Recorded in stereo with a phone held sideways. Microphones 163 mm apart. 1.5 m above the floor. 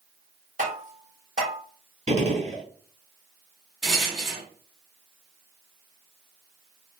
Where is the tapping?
50° right (ahead or behind), 1.3 m.